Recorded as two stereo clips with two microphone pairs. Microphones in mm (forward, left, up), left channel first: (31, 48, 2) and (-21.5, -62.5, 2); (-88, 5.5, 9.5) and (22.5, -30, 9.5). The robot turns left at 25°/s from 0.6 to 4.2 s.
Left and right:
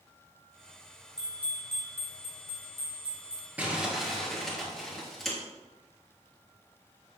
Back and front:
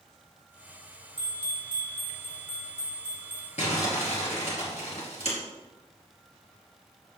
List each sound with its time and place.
1.2 s a bell: 30° right, 4.5 m; by 3.5 s 90° right, 4.5 m
3.6 s crumpling: 165° left, 3.5 m; by 5.4 s 150° left, 3.5 m